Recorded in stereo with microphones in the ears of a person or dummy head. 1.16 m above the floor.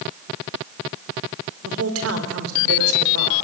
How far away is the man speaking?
About 4.5 m.